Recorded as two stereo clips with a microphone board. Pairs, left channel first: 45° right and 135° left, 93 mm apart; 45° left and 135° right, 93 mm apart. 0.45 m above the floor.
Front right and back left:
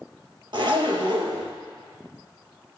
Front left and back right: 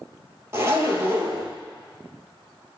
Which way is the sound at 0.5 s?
165° left.